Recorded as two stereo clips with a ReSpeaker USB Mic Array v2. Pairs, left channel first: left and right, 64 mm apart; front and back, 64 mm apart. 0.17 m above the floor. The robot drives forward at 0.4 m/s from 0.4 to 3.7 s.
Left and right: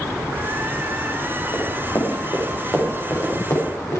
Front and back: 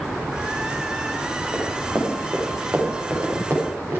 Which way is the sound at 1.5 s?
110° left.